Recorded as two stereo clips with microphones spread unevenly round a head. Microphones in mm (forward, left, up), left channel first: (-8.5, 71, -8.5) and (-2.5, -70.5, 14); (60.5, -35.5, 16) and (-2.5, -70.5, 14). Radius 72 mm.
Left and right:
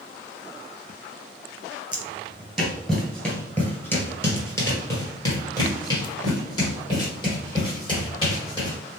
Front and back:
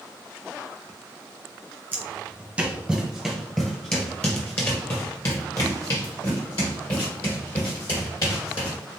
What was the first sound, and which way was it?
Footsteps, 140° right.